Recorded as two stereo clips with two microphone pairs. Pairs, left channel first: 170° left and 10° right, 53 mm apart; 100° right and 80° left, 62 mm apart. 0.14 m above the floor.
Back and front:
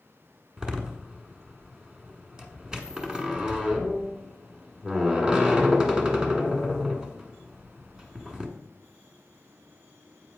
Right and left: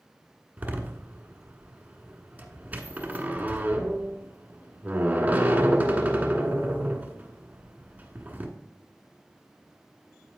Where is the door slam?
45° left, 1.2 m.